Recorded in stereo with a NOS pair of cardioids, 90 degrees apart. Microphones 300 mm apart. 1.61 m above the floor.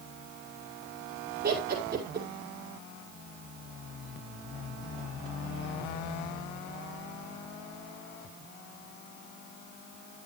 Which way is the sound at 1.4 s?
35° right.